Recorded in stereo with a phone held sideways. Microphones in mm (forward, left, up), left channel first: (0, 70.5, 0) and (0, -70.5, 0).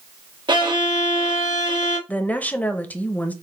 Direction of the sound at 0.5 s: 35° right (ahead or behind).